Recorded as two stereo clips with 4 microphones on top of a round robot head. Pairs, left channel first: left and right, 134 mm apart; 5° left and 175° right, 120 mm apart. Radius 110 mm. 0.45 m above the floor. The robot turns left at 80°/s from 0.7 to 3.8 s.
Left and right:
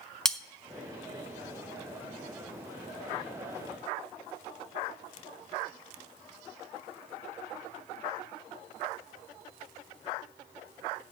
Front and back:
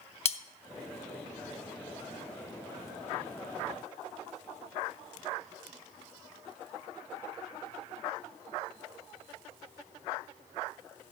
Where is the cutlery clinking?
5° left, 0.8 m.